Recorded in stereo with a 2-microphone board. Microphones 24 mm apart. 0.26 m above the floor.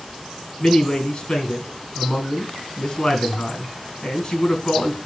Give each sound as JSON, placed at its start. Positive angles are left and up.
{"t": 0.6, "sound": "a man speaking", "side_deg": 35, "distance_m": 3.0}